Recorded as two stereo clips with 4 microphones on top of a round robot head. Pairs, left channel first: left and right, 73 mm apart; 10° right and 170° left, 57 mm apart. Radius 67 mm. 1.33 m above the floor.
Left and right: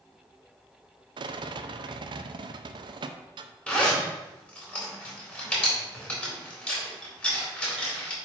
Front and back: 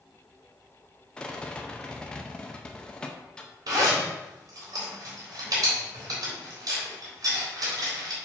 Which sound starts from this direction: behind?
A zipper, at 3.7 s.